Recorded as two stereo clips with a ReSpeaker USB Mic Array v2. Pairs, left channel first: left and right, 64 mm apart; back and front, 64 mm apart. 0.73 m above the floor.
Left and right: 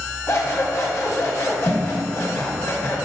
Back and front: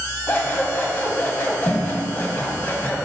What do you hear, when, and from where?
0.3 s scissors: 120° left, 1.2 m